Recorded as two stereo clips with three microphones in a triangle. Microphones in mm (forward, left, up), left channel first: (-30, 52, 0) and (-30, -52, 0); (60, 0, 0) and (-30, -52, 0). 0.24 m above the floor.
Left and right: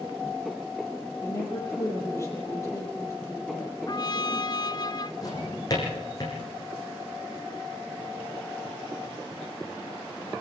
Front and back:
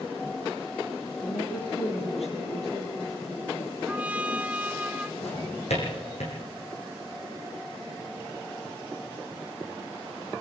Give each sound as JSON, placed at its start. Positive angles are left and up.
{"t": 1.2, "sound": "a woman speaking", "azimuth_deg": 30, "distance_m": 7.0}
{"t": 3.9, "sound": "a trumpet", "azimuth_deg": 135, "distance_m": 0.8}
{"t": 5.2, "sound": "a drawer", "azimuth_deg": 35, "distance_m": 6.5}